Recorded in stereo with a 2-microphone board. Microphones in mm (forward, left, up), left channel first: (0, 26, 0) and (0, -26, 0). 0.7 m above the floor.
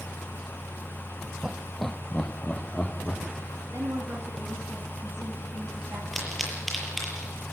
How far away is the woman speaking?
About 6 m.